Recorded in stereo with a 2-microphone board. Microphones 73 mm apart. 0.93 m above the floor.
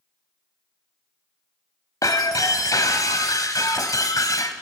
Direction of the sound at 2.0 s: 60° left (ahead or behind).